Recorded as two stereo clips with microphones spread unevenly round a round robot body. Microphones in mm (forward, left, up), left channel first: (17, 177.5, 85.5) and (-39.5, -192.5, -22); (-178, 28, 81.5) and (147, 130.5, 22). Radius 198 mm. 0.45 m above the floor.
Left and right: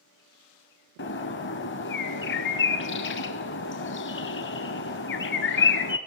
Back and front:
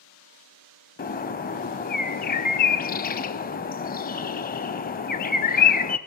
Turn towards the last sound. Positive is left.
turn(degrees=135)